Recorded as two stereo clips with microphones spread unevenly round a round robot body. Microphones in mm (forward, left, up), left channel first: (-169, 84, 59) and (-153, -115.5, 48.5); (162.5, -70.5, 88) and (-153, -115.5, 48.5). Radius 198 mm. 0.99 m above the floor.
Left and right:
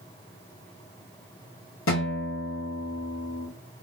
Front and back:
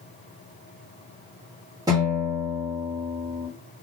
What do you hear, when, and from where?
1.9 s a guitar: 110° left, 1.2 m